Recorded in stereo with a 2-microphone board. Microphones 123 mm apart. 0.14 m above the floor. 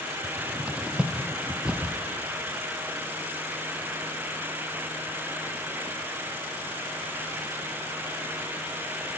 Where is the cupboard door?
10° right (ahead or behind), 1.6 m.